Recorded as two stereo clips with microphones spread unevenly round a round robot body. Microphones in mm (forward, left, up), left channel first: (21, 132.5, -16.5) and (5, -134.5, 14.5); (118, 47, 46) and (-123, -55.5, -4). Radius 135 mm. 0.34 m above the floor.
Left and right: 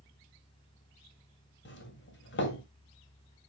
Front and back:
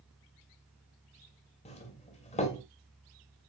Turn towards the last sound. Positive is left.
turn(degrees=90)